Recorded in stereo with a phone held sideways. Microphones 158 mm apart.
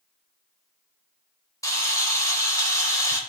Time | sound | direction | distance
1.6 | a camera shutter | 20° left (ahead or behind) | 3.5 m